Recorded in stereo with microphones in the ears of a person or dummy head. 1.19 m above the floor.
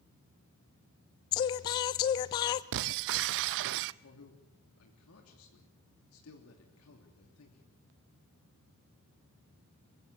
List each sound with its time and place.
1.3 s singing: 30° left (ahead or behind), 0.6 m
2.7 s breaking glass: 65° right (ahead or behind), 0.6 m
4.0 s a man speaking: 80° left, 3 m